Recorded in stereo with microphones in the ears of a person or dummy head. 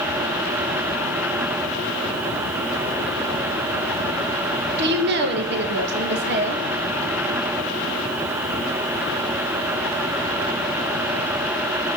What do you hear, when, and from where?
4.8 s a woman speaking: 60° right (ahead or behind), 2.5 m